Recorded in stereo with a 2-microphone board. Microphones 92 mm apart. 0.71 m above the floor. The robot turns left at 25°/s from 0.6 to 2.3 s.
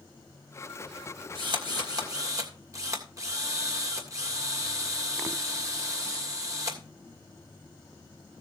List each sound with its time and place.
1.4 s a drill: 60° right (ahead or behind), 2.5 m; by 6.8 s 35° right (ahead or behind), 2.5 m